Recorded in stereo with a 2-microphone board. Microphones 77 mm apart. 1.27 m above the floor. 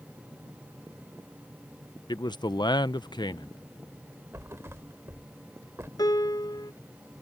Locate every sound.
2.1 s a man speaking: 65° left (ahead or behind)
4.3 s a thud: 35° right (ahead or behind)
6.0 s a piano: 55° left (ahead or behind)